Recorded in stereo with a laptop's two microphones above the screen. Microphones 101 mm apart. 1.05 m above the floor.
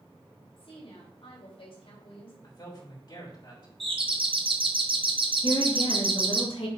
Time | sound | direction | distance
0.6 | a woman speaking | 65° left (ahead or behind) | 3.5 m
2.4 | a man speaking | 50° left (ahead or behind) | 3.5 m
3.8 | a doorbell | 60° right (ahead or behind) | 1.0 m
5.4 | a woman speaking | 60° left (ahead or behind) | 2 m